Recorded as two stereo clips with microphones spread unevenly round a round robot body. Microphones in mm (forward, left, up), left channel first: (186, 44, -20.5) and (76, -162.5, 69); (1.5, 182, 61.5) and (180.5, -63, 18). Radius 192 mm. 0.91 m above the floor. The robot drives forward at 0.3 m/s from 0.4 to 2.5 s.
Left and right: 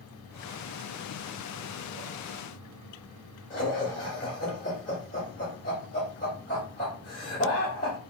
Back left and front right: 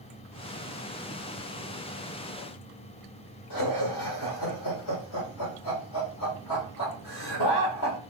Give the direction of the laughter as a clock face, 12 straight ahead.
8 o'clock.